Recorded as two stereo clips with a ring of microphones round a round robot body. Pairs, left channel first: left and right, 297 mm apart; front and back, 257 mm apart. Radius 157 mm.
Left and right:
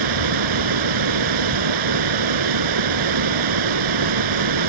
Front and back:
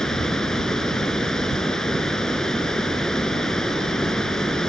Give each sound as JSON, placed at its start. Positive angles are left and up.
{"t": 0.0, "sound": "running water", "azimuth_deg": -90}